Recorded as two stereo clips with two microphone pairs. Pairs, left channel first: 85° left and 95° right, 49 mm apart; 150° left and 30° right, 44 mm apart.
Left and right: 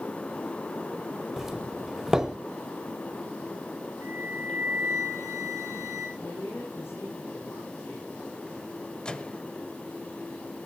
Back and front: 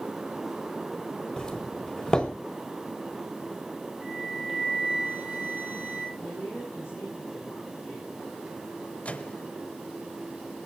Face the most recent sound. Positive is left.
turn(degrees=135)